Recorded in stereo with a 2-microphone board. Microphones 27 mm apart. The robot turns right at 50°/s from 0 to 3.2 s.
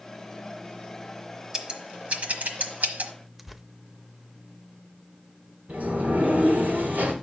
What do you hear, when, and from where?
1.5 s scissors: 25° right (ahead or behind), 1.2 m; by 3.1 s 75° right (ahead or behind), 1.2 m
3.4 s tearing paper: 5° right (ahead or behind), 0.5 m
5.7 s a sliding door: 75° right (ahead or behind), 3 m